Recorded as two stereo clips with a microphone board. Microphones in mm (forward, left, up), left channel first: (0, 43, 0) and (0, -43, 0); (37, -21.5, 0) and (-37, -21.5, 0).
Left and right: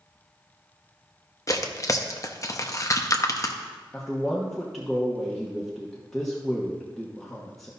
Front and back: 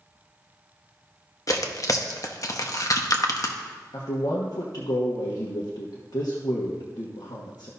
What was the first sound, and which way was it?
Tearing paper, 40° left.